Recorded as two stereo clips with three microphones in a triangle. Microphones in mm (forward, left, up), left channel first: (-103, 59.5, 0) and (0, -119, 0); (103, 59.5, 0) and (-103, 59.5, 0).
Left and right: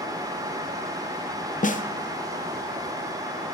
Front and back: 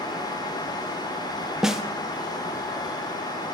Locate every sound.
1.6 s a snare drum: 95° left, 0.8 m